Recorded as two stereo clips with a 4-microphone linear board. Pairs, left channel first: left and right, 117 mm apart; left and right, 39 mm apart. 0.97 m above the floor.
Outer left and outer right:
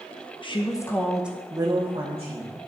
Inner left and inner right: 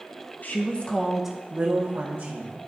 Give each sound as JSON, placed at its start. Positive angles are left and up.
{"t": 0.4, "sound": "a woman speaking", "side_deg": 45, "distance_m": 1.1}